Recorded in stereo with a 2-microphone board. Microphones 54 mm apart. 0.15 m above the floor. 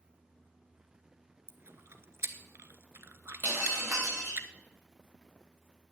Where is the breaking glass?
40° right (ahead or behind), 6.5 m.